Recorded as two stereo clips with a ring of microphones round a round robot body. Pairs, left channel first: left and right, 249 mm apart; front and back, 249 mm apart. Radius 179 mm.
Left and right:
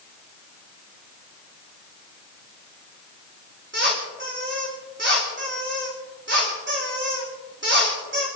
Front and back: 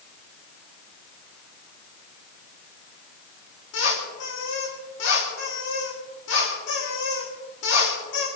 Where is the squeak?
50° right, 9 m.